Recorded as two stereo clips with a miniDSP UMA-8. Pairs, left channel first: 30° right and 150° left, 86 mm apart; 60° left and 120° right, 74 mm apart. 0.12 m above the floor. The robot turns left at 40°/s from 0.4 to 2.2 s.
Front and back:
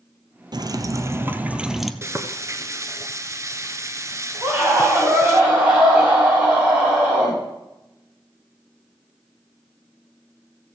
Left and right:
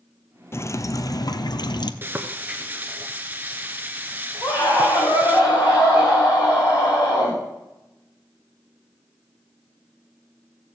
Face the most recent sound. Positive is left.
turn(degrees=80)